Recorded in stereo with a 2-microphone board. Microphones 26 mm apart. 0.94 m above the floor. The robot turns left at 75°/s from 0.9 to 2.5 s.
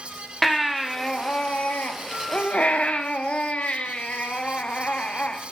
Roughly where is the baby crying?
Behind.